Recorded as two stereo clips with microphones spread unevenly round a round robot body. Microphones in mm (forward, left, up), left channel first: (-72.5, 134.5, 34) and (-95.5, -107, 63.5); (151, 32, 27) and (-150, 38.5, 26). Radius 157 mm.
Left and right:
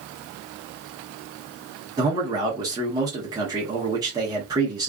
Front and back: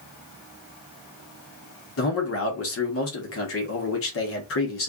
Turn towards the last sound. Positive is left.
turn(degrees=-20)